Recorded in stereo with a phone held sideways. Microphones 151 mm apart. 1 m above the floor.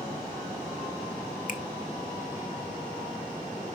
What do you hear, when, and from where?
1.5 s a finger snap: 60° left (ahead or behind), 1.0 m